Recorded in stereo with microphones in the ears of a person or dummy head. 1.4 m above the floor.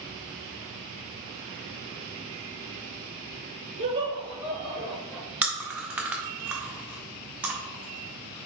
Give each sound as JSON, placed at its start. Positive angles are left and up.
{"t": 3.8, "sound": "laughter", "side_deg": -45, "distance_m": 0.6}
{"t": 5.4, "sound": "chewing", "side_deg": 0, "distance_m": 0.8}